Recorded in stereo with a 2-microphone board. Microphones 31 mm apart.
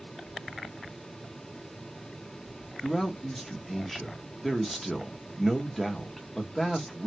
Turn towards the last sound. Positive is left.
turn(degrees=5)  # may be behind; listen again after turning